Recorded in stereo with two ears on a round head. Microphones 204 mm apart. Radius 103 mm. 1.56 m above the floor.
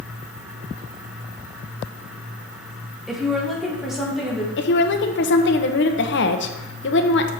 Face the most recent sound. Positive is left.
turn(degrees=50)  # may be behind; listen again after turning